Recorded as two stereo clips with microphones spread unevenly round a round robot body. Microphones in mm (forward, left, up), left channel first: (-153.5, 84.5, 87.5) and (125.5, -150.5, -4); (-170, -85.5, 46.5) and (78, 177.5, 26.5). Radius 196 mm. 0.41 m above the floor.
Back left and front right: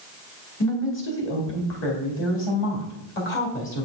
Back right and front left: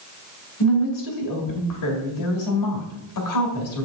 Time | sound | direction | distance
0.6 | a woman speaking | 160° right | 2 m